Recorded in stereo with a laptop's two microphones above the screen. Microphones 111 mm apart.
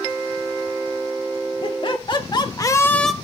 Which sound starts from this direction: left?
Laughter, at 1.6 s.